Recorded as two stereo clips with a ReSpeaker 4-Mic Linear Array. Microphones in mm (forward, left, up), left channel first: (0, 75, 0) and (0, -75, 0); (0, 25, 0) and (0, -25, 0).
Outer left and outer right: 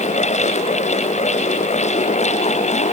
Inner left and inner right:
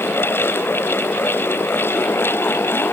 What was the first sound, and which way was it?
Only background noise.